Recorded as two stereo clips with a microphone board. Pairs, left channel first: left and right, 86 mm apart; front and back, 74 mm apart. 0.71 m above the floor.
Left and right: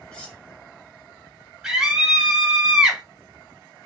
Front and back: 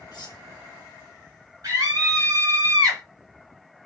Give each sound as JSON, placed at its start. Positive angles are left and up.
{"t": 0.1, "sound": "cutlery clinking", "azimuth_deg": 10, "distance_m": 0.9}
{"t": 1.6, "sound": "a scream", "azimuth_deg": -165, "distance_m": 1.7}